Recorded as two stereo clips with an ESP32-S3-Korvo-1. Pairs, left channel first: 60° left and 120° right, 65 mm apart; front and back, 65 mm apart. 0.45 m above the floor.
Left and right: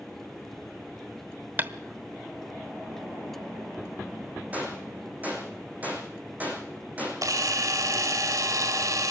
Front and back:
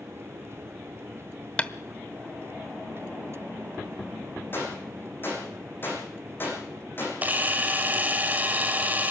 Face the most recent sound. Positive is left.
turn(degrees=-120)